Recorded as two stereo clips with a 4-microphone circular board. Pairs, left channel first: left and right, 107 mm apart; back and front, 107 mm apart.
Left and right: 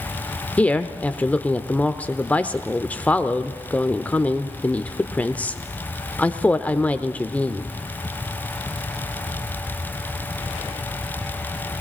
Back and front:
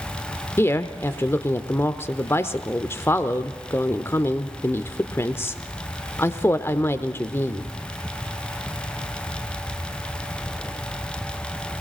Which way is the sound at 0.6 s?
150° left.